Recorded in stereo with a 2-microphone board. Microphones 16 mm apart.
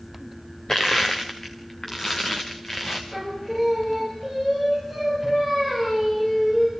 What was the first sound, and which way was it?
Crushing, 35° left (ahead or behind).